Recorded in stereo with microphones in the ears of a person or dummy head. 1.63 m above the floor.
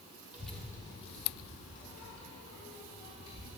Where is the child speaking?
5° right (ahead or behind), 1.1 m; by 3.5 s 65° left (ahead or behind), 5 m.